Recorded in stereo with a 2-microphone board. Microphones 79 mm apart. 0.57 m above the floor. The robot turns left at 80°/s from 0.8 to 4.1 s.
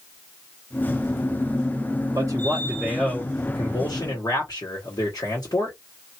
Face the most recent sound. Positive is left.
turn(degrees=85)